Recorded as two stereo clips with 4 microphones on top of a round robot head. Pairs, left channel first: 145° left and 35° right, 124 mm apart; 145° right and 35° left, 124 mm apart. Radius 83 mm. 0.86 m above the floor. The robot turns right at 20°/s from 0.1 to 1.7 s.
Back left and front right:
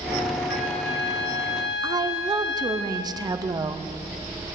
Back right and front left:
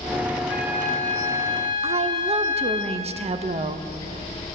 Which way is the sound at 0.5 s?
130° left.